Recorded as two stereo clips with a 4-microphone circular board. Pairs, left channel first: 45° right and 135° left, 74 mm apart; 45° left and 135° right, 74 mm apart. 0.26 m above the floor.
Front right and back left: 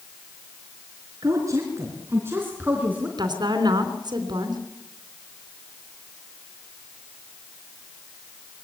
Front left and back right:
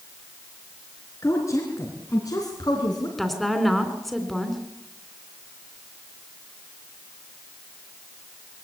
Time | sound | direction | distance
1.2 | a woman speaking | 95° left | 3.5 m
3.2 | a woman speaking | 135° left | 3 m